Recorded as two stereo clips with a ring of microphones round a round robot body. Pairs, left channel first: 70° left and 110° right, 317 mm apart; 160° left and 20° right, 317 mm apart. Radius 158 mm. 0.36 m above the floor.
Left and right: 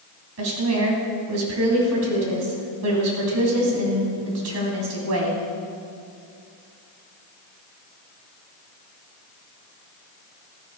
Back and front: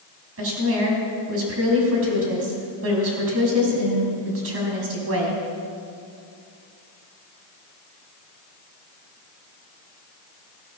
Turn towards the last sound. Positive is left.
turn(degrees=-70)